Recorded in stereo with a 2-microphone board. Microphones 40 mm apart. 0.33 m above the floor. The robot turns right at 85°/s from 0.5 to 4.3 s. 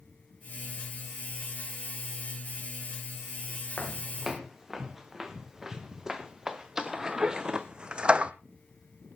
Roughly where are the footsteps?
Left.